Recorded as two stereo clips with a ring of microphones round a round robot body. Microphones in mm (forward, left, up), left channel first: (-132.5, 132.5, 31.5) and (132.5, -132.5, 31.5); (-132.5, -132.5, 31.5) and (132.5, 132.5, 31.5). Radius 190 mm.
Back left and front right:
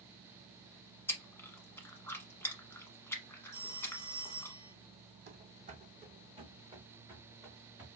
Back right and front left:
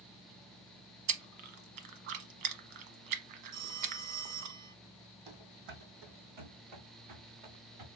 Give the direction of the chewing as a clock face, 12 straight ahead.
10 o'clock.